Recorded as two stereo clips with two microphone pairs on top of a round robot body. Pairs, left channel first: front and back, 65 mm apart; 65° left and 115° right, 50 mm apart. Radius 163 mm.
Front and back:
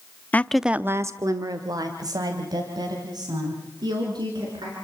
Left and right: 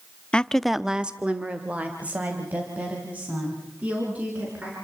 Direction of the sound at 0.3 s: 35° left.